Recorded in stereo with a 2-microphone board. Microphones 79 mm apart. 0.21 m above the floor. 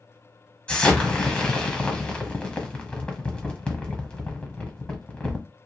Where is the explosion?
15° left (ahead or behind), 1.0 m.